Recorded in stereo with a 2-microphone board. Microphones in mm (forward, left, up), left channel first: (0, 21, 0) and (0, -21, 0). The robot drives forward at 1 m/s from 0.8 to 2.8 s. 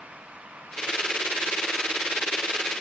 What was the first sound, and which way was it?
Only background noise.